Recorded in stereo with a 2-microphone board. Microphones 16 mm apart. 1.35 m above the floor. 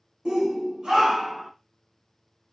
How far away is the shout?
About 0.8 m.